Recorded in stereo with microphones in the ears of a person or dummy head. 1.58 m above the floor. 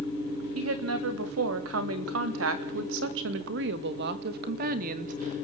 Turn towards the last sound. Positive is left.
turn(degrees=-40)  # may be behind; listen again after turning